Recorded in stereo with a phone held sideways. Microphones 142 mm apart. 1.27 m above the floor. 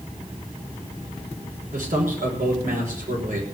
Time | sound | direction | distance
1.7 | a man speaking | 75° right (ahead or behind) | 5.5 m